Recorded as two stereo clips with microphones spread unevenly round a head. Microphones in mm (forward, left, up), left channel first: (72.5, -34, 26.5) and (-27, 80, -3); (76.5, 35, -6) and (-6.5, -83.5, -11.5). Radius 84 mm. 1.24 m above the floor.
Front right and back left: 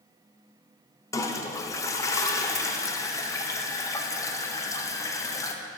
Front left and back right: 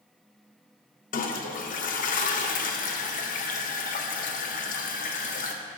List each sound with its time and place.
1.1 s a toilet flushing: 25° left, 0.6 m